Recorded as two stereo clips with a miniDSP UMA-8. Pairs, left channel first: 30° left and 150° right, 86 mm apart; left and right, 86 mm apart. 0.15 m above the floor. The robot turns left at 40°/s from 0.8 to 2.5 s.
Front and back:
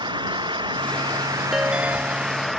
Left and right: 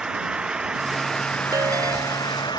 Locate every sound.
0.0 s an engine running: 170° right; by 2.6 s 120° left
1.5 s a ringtone: 65° right; by 2.6 s 105° right